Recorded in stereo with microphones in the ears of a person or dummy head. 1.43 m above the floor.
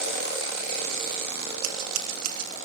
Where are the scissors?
80° right, 2.5 m.